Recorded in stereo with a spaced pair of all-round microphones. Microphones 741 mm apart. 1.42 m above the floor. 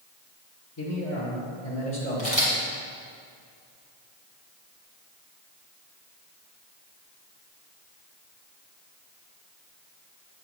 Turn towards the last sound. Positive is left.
turn(degrees=50)  # may be behind; listen again after turning